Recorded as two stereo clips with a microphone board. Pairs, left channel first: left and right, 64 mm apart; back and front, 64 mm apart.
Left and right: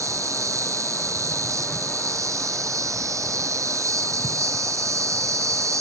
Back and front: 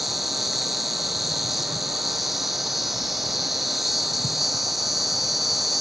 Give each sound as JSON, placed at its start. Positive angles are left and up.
{"t": 0.0, "sound": "an insect", "azimuth_deg": -85, "distance_m": 1.5}